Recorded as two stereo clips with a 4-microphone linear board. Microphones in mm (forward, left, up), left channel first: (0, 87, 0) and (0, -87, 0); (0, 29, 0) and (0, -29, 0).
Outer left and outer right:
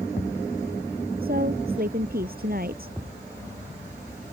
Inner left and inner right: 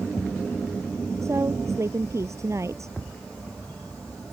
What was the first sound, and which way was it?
A woman speaking, 60° right (ahead or behind).